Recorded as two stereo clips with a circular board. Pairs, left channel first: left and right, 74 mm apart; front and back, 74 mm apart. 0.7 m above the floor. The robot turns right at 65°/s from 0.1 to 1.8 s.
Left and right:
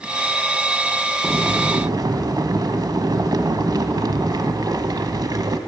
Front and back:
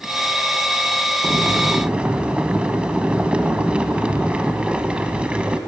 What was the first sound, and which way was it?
Boiling, 140° right.